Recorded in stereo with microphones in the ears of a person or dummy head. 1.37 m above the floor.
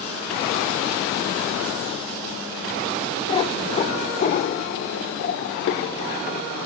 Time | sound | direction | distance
3.3 | a cat meowing | 25° left (ahead or behind) | 1.5 m